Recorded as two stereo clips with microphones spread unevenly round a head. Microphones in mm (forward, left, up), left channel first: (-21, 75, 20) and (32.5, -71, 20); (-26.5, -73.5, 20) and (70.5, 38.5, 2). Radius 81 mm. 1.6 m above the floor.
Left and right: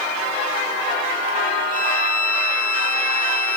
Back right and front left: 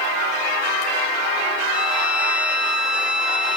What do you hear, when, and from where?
1.7 s a violin: 135° left, 1.7 m